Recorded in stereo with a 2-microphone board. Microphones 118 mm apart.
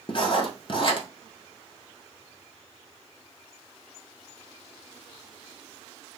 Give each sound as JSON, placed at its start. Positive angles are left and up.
{"t": 0.1, "sound": "writing", "side_deg": 45, "distance_m": 0.7}